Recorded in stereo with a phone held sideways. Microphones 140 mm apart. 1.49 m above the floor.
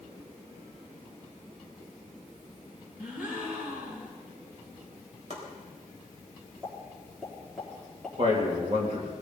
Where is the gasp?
15° right (ahead or behind), 5 m.